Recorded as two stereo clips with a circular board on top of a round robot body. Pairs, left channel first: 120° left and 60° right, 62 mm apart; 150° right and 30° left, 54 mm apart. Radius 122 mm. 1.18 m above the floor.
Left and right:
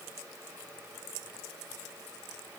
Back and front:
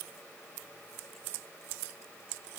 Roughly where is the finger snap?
No finger snap in this recording.